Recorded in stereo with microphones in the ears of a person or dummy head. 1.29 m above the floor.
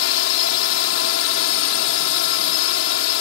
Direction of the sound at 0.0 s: 70° left (ahead or behind).